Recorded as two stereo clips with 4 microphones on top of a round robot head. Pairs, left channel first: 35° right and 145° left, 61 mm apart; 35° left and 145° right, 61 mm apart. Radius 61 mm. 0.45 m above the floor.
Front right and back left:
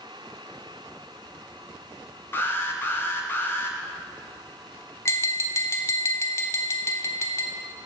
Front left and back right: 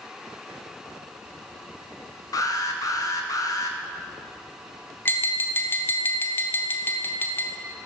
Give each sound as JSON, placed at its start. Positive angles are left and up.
{"t": 2.3, "sound": "an alarm", "azimuth_deg": 15, "distance_m": 1.1}
{"t": 5.0, "sound": "tapping", "azimuth_deg": -10, "distance_m": 1.1}